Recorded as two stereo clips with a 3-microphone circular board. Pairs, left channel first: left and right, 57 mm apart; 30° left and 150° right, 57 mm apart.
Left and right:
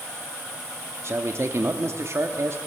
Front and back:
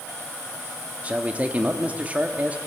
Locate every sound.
1.0 s a man speaking: 90° right, 1.3 m